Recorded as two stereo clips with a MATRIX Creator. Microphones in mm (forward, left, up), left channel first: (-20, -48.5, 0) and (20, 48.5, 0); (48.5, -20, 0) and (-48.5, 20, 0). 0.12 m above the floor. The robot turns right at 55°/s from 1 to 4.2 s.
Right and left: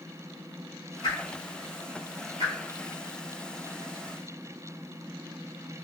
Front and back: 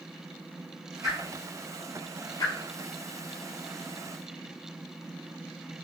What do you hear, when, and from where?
1.0 s a whoosh: 150° right, 1.8 m; by 2.5 s 65° right, 1.8 m